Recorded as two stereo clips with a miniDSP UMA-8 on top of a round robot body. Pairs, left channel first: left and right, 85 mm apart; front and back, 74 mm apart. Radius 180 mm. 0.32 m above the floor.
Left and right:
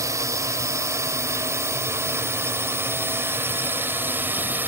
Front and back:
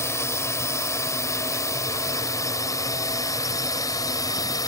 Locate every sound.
0.0 s a drone: 45° right; by 4.7 s 25° right